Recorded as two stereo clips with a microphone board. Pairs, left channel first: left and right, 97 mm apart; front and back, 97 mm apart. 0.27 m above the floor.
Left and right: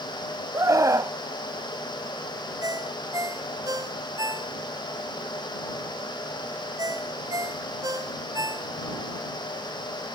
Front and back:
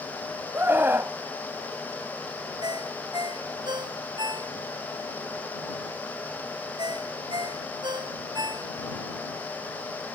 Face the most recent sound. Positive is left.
turn(degrees=-140)